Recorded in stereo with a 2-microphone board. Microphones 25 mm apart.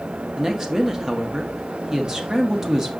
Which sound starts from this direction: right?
A woman speaking, at 0.4 s.